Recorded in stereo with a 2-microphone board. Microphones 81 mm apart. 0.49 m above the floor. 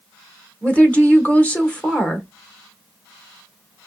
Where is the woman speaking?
20° left (ahead or behind), 1.2 m.